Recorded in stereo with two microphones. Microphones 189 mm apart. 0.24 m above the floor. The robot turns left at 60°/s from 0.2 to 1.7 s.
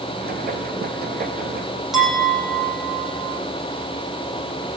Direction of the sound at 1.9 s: Centre (ahead or behind).